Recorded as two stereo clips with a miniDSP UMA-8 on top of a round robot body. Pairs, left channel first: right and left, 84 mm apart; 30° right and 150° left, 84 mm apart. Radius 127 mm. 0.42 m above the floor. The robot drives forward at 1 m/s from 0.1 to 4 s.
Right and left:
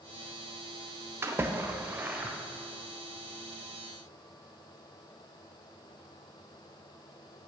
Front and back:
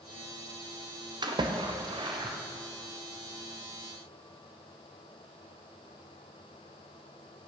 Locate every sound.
1.2 s a splash: 145° left, 1.7 m; by 2.4 s 160° left, 2.5 m